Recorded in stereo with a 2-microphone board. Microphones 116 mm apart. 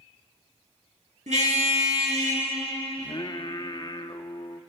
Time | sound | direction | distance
1.3 | a car horn | 80° right | 7.5 m
3.0 | singing | 40° left (ahead or behind) | 0.9 m